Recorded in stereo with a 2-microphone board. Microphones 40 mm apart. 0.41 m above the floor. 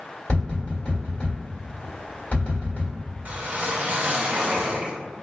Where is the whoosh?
45° right (ahead or behind), 0.5 m.